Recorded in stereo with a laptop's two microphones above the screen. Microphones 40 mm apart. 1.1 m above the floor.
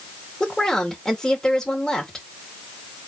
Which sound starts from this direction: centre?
A woman speaking, at 0.4 s.